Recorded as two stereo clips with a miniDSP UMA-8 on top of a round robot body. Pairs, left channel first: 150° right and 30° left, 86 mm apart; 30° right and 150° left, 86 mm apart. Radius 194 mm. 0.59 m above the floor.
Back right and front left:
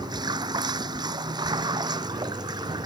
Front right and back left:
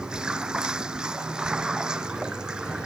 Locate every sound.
0.0 s running water: 70° left